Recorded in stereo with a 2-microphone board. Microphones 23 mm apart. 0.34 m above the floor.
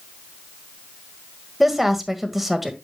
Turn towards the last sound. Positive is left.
turn(degrees=-5)  # may be behind; listen again after turning